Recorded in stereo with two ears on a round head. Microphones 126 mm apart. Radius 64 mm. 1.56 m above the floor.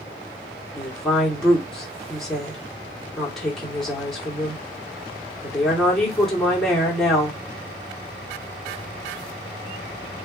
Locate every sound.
0.8 s a woman speaking: 5° left (ahead or behind), 1.1 m